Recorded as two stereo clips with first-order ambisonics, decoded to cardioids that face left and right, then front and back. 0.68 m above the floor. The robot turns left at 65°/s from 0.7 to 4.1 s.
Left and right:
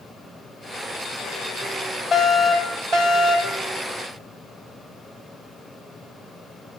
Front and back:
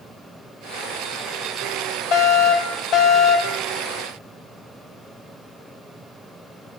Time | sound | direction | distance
2.1 | a fire alarm | 15° left | 4.5 m